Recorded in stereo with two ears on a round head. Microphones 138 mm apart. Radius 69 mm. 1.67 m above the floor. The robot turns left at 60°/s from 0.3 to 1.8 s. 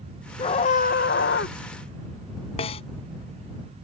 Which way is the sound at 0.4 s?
145° left.